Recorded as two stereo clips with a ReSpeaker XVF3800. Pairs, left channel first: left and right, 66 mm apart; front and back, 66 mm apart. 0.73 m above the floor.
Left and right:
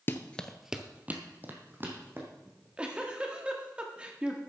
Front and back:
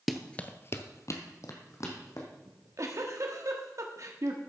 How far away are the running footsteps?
About 0.8 m.